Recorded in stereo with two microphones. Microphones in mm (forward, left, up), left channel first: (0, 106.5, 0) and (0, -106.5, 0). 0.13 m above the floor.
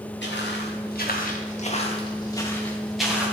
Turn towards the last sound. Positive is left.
turn(degrees=-10)  # may be behind; listen again after turning